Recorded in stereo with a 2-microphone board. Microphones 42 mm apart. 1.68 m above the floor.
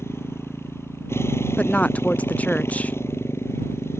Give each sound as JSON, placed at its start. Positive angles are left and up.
{"t": 0.0, "sound": "a motorcycle", "side_deg": 85}
{"t": 1.6, "sound": "a woman speaking", "side_deg": 35}